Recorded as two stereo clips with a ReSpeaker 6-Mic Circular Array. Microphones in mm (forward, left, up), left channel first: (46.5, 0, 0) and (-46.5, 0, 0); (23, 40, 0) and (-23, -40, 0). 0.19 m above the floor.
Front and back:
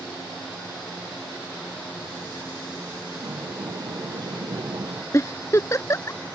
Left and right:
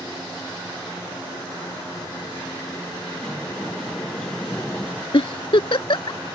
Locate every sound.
3.1 s a sliding door: 145° left
5.1 s a giggle: 55° left